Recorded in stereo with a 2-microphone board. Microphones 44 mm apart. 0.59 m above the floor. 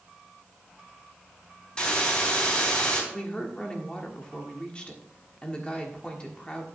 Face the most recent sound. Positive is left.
turn(degrees=20)  # may be behind; listen again after turning